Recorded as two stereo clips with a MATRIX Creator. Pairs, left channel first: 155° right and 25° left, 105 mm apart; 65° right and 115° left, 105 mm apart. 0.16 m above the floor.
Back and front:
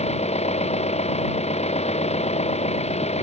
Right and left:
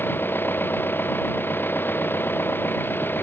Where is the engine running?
140° right.